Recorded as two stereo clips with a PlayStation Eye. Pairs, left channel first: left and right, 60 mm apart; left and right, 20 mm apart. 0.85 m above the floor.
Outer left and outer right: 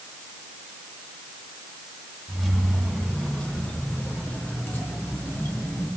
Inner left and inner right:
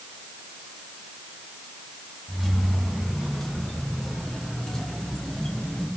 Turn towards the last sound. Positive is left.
turn(degrees=40)  # may be behind; listen again after turning